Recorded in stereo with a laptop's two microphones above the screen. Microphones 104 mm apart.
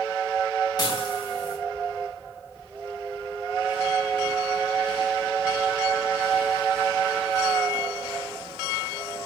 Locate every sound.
0.8 s dishes clattering: 40° left (ahead or behind), 5 m